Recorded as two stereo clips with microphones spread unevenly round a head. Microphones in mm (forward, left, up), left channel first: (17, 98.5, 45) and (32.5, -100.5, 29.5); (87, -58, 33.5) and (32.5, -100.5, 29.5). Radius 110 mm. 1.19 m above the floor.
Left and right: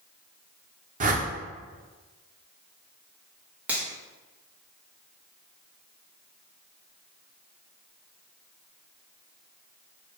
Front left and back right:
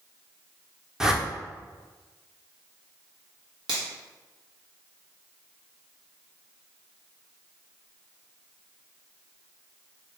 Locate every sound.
1.0 s a whoosh: 65° right, 0.8 m
3.7 s a finger snap: 170° right, 1.1 m